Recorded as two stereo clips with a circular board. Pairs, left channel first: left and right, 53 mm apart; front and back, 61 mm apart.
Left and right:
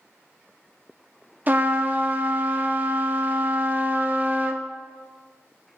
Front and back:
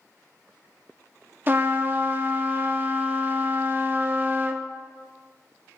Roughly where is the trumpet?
Behind right.